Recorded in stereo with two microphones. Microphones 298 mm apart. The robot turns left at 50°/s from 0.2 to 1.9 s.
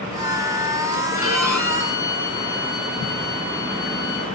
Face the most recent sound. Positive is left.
turn(degrees=100)